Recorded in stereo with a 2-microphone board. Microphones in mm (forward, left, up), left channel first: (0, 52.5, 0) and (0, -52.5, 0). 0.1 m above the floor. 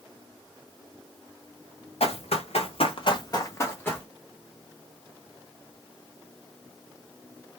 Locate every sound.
2.0 s running footsteps: 80° left, 1.3 m; by 4.1 s 15° left (ahead or behind), 1.5 m